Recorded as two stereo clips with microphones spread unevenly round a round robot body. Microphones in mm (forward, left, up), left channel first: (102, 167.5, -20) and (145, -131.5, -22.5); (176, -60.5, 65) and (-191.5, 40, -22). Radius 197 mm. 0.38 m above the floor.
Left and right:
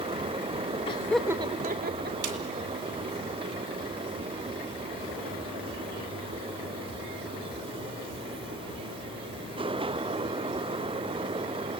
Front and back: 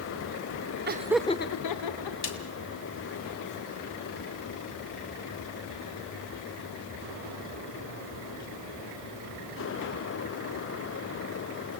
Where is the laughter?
165° left, 1.1 m; by 2.1 s 30° right, 1.6 m.